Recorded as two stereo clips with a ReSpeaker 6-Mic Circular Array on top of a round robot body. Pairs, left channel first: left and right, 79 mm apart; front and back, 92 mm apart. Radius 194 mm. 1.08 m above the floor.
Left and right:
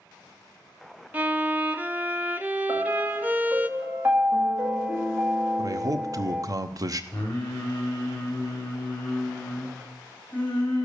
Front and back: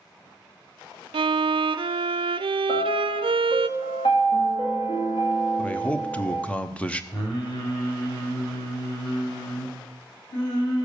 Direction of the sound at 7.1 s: 15° left.